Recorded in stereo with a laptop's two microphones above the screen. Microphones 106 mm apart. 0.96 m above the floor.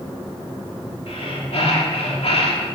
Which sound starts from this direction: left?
Breathing, at 1.1 s.